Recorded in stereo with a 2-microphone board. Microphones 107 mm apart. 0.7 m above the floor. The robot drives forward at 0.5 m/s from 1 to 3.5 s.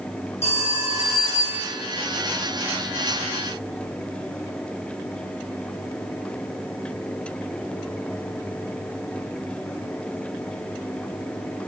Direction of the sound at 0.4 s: 70° left (ahead or behind).